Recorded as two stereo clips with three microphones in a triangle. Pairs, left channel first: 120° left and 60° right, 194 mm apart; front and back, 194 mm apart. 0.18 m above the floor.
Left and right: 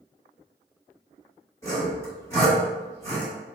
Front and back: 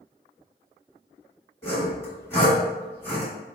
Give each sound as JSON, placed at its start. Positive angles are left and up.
{"t": 1.6, "sound": "sawing", "azimuth_deg": 60, "distance_m": 1.9}